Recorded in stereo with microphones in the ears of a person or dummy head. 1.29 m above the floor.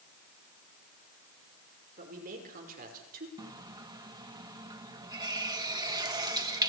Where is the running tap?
20° right (ahead or behind), 1.2 m.